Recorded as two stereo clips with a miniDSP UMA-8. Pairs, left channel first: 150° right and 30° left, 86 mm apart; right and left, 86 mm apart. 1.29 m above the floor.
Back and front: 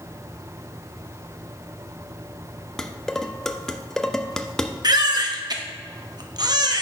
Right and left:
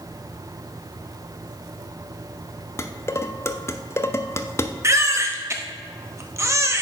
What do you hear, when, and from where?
2.8 s dishes clattering: 70° right, 0.5 m
4.8 s a baby crying: 45° left, 0.8 m